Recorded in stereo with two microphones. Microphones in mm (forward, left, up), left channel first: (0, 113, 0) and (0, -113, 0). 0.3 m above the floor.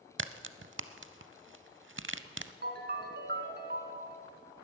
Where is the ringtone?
50° right (ahead or behind), 1.6 m.